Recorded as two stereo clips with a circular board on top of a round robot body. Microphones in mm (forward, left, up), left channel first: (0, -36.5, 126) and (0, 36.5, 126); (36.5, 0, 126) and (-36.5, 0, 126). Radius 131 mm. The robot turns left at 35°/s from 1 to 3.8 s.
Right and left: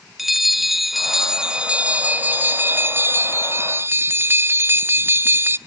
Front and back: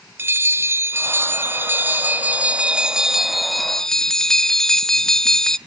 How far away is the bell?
About 0.9 m.